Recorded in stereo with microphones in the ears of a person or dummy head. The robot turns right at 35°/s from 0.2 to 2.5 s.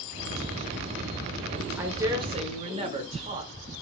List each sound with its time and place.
1.8 s a woman speaking: 10° right (ahead or behind), 1.3 m; by 3.5 s 35° right (ahead or behind), 1.3 m